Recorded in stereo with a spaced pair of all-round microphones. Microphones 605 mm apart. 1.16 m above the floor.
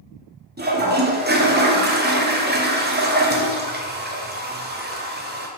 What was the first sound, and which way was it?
A toilet flushing, 20° right (ahead or behind).